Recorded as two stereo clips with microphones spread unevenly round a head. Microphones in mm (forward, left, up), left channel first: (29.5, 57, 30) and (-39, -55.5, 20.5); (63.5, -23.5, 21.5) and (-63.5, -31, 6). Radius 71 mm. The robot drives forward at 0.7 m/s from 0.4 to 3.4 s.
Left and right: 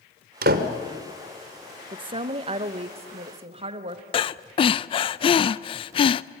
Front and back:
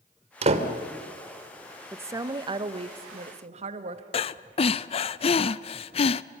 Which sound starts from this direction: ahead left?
Breathing, at 4.1 s.